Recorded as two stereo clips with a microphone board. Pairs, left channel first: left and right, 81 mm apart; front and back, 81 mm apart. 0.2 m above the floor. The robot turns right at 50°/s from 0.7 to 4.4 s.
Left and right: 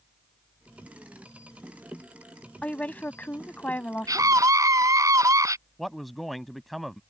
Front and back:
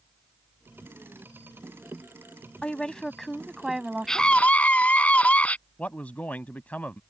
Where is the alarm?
No alarm in this recording.